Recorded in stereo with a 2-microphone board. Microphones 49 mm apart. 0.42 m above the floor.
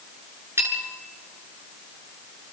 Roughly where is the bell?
Right.